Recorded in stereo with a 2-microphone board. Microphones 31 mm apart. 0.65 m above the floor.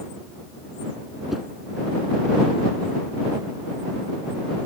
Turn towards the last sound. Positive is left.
turn(degrees=0)  # may be behind; listen again after turning